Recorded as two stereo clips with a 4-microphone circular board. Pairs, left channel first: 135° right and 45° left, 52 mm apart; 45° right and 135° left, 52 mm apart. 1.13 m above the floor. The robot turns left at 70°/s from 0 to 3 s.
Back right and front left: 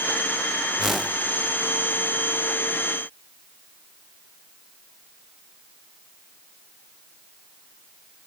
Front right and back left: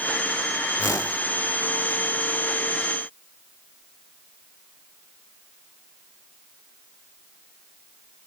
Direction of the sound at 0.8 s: 30° right.